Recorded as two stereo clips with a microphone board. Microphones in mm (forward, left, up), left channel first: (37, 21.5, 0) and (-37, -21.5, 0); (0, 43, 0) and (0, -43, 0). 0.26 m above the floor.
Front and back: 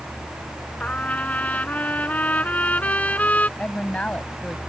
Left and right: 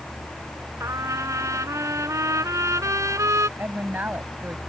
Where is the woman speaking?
35° right.